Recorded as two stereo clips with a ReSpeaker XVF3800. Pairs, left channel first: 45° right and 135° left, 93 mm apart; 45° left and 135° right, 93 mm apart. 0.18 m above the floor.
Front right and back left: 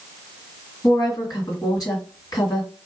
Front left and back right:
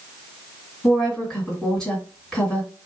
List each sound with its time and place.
0.8 s a woman speaking: 35° right, 1.9 m